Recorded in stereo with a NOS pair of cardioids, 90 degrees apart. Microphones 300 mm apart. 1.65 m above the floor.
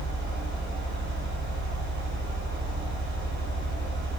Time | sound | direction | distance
0.0 | a fan | 40° right | 1.3 m